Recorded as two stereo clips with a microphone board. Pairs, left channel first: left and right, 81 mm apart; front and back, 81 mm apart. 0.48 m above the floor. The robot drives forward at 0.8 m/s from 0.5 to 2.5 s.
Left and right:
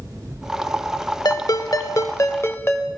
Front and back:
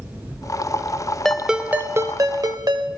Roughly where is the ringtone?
Left.